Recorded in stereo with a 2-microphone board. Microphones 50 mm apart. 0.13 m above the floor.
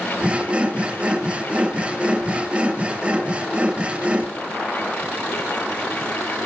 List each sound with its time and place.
0.2 s sawing: 25° right (ahead or behind), 2.5 m